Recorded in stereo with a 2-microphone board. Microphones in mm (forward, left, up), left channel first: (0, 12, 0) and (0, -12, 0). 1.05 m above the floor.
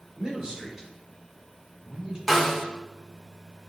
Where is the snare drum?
5° right (ahead or behind), 1.4 m.